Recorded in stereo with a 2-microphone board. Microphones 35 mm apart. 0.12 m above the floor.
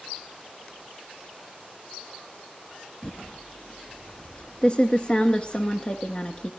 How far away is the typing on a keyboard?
About 1.0 m.